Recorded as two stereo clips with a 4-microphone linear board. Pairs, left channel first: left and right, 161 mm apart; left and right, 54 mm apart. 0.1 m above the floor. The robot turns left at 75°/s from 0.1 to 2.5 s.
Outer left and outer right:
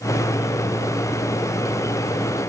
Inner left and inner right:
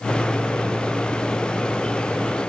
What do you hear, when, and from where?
Only background noise.